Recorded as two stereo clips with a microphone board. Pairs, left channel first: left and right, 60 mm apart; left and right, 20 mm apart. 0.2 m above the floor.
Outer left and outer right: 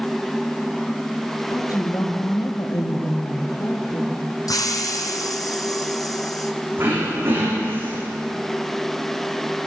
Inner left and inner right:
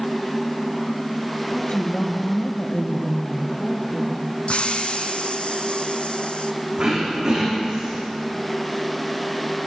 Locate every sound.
1.5 s a woman speaking: 75° left (ahead or behind), 6 m
4.5 s a hiss: 80° left, 2 m
6.8 s throat clearing: 35° right (ahead or behind), 7.5 m